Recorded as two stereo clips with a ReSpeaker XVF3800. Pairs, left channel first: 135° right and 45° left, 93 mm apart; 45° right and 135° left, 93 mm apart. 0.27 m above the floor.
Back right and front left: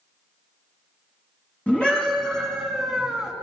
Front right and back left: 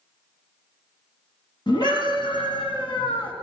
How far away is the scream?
About 2.5 m.